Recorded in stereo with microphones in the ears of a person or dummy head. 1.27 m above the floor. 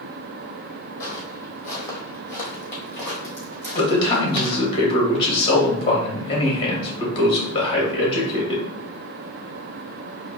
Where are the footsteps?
20° left (ahead or behind), 1.7 m; by 4.6 s 15° left (ahead or behind), 3.5 m.